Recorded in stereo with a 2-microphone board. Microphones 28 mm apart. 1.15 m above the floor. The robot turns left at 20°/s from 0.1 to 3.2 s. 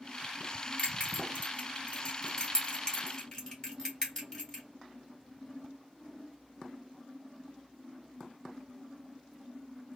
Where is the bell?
60° left (ahead or behind), 1.7 m; by 4.6 s 15° left (ahead or behind), 1.7 m.